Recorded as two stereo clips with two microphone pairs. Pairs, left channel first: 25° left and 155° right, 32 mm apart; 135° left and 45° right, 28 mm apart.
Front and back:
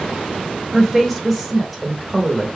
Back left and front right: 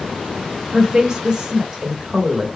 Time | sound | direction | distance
0.7 | a woman speaking | 60° right | 1.1 m